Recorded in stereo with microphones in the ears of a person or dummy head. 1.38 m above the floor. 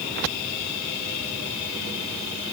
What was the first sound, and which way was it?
Only background noise.